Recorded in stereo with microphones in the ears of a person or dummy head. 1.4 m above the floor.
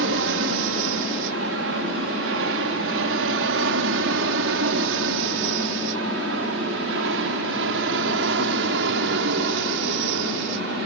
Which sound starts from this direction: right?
An aircraft, at 0.0 s.